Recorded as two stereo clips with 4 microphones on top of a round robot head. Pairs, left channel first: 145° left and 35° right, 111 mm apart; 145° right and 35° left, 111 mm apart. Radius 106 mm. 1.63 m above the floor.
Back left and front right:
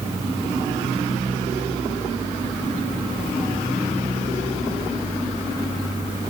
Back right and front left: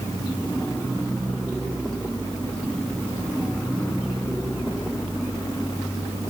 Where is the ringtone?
No ringtone in this recording.